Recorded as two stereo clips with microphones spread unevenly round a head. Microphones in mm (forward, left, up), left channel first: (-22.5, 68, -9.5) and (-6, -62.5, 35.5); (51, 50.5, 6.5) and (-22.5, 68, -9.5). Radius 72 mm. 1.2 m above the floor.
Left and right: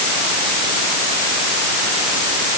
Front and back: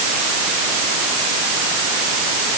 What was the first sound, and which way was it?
Only background noise.